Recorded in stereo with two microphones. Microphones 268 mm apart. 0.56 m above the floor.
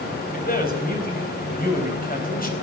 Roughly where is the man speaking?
Left.